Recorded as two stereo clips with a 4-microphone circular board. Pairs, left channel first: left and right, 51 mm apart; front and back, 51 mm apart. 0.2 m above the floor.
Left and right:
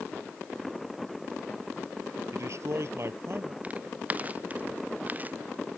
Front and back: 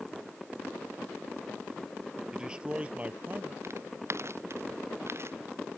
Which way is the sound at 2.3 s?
105° right.